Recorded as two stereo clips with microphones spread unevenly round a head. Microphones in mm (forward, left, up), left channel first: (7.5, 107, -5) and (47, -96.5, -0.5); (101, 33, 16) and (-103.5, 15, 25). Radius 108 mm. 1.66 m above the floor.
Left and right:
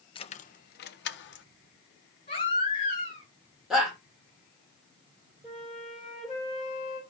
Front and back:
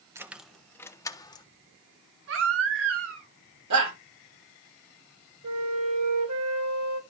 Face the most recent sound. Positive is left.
turn(degrees=-165)